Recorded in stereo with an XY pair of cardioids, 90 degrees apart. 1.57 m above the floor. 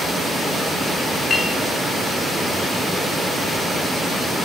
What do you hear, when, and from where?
1.3 s a clink: 55° left, 4 m